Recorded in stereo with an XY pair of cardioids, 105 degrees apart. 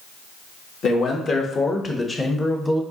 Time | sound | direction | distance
0.8 | a man speaking | 50° left | 1.3 m